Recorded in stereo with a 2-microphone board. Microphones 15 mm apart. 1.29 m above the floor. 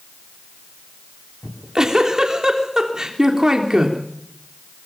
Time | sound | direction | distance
1.4 | a giggle | 40° right (ahead or behind) | 3 m